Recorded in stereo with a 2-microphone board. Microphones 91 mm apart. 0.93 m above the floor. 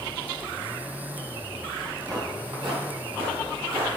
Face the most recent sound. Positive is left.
turn(degrees=-65)  # may be behind; listen again after turning